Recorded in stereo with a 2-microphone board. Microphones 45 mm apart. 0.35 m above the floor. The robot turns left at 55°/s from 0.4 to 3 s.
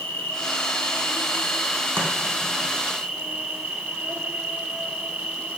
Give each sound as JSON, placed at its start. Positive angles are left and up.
{"t": 0.0, "sound": "an insect", "azimuth_deg": 100, "distance_m": 1.6}
{"t": 2.0, "sound": "chopping", "side_deg": -65, "distance_m": 3.0}